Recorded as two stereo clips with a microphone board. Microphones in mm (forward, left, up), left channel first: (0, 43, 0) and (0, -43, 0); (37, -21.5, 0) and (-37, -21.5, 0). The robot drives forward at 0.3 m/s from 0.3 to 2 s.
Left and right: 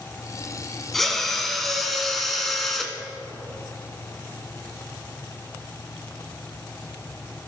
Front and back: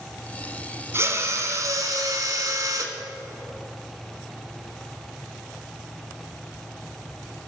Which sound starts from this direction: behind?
A drill, at 0.9 s.